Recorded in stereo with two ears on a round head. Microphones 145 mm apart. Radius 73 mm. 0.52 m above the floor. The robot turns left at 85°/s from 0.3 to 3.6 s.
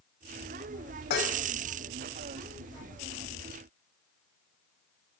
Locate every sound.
1.1 s dishes clattering: 65° left (ahead or behind), 1.8 m; by 1.4 s 80° left, 1.8 m